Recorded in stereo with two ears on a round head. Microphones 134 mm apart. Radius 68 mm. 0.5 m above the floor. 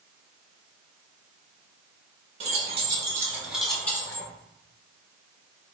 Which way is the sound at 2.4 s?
45° right (ahead or behind).